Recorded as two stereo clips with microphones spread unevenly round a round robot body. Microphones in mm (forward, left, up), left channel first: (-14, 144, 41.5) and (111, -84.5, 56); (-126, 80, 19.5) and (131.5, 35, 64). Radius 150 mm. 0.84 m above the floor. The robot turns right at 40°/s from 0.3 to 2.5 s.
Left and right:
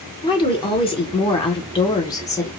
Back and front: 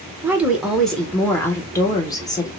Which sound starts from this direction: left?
A woman speaking, at 0.2 s.